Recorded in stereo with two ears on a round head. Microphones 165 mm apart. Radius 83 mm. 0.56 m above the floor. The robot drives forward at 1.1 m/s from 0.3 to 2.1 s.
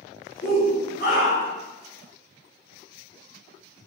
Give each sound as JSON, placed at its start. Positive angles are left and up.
{"t": 0.4, "sound": "a shout", "side_deg": 35, "distance_m": 1.4}